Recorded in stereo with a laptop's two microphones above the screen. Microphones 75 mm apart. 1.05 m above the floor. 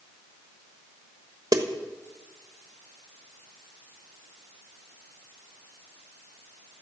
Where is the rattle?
No rattle in this recording.